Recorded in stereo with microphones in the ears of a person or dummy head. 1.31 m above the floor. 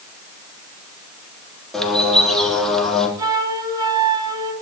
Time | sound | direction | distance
1.7 | a bird | centre (ahead or behind) | 3 m
3.2 | a flute | 25° right (ahead or behind) | 2.5 m